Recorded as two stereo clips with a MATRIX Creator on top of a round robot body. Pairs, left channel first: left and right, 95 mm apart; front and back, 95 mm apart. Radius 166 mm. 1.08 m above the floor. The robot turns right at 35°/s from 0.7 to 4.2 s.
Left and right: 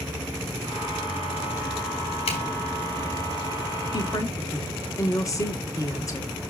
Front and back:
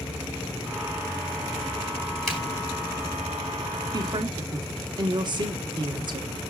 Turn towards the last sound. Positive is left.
turn(degrees=145)